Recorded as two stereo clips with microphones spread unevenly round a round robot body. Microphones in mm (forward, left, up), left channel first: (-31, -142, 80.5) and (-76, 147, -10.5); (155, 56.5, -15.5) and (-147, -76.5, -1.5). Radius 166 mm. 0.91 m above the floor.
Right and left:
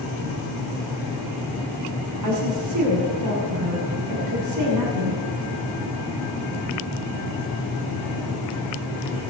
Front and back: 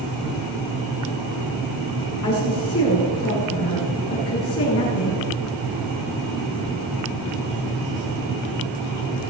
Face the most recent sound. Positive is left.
turn(degrees=70)